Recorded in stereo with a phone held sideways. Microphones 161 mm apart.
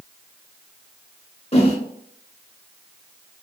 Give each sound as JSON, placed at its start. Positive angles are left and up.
{"t": 1.5, "sound": "a whoosh", "side_deg": 35, "distance_m": 0.7}